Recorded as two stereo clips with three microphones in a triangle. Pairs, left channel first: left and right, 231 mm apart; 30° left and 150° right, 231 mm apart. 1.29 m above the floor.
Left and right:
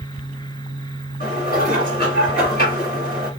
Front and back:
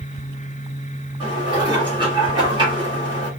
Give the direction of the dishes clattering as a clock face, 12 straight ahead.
7 o'clock.